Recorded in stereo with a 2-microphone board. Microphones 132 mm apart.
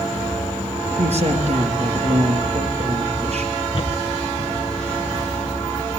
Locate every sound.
1.0 s a man speaking: 55° right (ahead or behind), 4.5 m
3.7 s footsteps: 40° left (ahead or behind), 3 m; by 5.6 s 45° left (ahead or behind), 4.5 m